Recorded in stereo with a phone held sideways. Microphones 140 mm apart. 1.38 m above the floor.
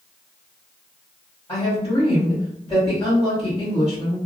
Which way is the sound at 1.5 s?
30° left (ahead or behind).